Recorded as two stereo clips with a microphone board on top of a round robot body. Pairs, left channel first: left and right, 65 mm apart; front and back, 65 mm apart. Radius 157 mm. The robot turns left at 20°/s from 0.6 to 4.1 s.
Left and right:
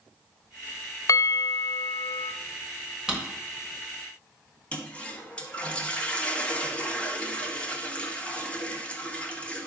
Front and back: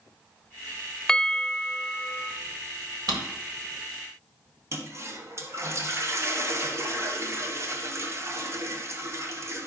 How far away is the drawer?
About 1.4 m.